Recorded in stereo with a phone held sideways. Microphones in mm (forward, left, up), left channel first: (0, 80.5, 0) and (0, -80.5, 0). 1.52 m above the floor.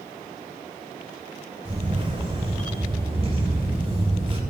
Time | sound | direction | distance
1.6 | a camera shutter | 40° right (ahead or behind) | 4 m